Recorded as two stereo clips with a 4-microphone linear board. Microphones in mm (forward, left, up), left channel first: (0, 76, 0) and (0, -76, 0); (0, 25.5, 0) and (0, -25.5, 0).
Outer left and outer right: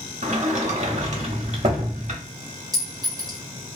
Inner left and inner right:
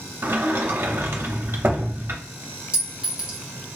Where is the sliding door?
50° right (ahead or behind), 0.7 m.